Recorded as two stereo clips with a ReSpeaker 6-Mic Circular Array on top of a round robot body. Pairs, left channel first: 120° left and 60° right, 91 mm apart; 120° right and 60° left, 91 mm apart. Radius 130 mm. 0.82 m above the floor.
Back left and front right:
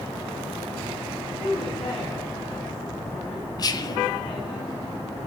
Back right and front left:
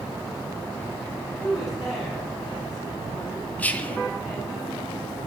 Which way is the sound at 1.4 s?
150° left.